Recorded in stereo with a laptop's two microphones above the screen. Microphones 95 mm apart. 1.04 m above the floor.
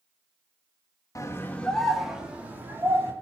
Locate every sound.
1.1 s a scream: 35° left (ahead or behind), 1.5 m; by 3.1 s 25° right (ahead or behind), 3 m